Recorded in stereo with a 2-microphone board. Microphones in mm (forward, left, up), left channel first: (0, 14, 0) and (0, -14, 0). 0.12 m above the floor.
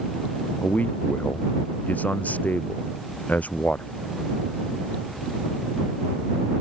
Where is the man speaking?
65° left (ahead or behind).